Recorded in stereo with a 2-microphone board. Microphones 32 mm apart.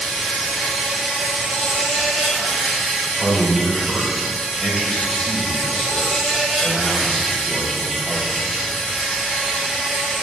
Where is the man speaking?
15° left (ahead or behind), 3 m.